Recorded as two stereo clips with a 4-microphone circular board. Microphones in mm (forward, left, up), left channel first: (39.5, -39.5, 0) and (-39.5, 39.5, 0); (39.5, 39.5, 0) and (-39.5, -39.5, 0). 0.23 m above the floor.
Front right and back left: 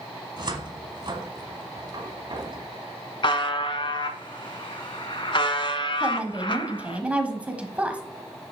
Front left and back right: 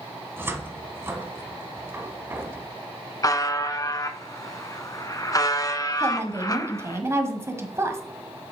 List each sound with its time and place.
0.4 s a cupboard door: 160° left, 1.1 m
3.2 s a buzzer: 10° right, 0.7 m
6.0 s a woman speaking: 165° right, 1.2 m